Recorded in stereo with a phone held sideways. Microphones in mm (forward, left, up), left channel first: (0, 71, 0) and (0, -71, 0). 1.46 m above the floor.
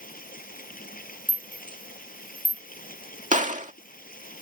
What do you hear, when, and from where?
0.0 s running water: 85° left
1.3 s a rattle: 35° right (ahead or behind)
3.3 s a gunshot: 60° right (ahead or behind)